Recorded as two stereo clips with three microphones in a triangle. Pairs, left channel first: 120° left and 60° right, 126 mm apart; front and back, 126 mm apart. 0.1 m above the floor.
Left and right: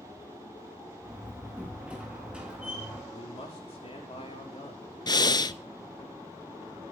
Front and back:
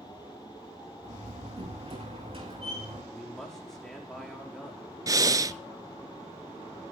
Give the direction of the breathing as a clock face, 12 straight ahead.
7 o'clock.